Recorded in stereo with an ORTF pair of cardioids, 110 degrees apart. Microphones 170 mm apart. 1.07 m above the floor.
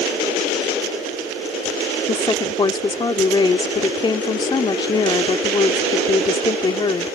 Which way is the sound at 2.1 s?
25° left.